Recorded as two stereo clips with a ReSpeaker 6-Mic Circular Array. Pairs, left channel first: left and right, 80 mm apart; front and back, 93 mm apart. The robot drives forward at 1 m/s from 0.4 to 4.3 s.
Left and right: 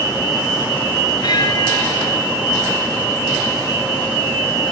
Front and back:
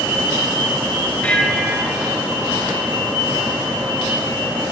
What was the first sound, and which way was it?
A bell, 75° left.